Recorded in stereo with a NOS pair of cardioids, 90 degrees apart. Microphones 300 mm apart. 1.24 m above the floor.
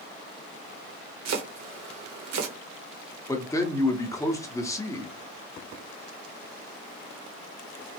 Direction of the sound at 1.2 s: 60° right.